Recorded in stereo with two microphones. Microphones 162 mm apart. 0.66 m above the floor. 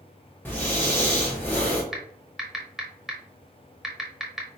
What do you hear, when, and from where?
0.5 s breathing: 10° left (ahead or behind), 1.3 m
1.9 s typing on a keyboard: centre (ahead or behind), 0.9 m